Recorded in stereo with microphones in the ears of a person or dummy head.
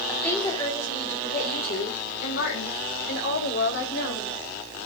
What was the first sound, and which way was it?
A woman speaking, 5° left (ahead or behind).